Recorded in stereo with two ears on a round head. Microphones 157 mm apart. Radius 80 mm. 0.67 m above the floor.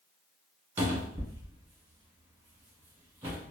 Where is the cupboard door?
20° right (ahead or behind), 1.3 m.